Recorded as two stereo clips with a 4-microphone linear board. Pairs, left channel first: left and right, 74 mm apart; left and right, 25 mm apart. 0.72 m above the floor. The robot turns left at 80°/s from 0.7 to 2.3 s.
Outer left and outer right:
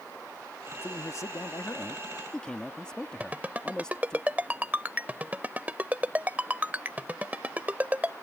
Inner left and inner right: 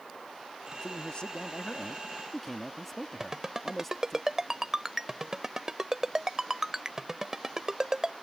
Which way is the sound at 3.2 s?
25° right (ahead or behind).